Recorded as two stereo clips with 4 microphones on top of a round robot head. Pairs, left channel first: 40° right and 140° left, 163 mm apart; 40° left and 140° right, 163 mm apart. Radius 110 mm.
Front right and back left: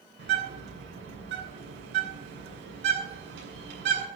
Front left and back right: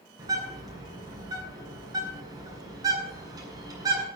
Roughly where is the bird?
Behind left.